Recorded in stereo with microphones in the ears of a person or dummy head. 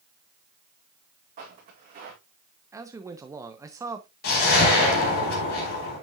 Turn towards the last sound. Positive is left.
turn(degrees=60)  # may be behind; listen again after turning